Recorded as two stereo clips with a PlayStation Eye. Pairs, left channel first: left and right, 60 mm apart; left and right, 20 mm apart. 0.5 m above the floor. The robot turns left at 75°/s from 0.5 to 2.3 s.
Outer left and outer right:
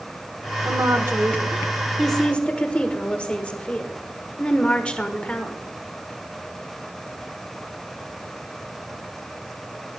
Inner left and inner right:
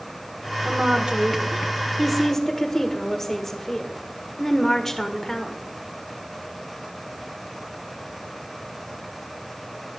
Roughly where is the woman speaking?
Right.